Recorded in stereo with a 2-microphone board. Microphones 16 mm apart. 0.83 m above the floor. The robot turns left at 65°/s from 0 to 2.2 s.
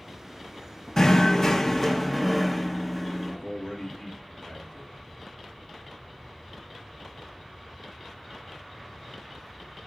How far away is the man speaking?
About 2 m.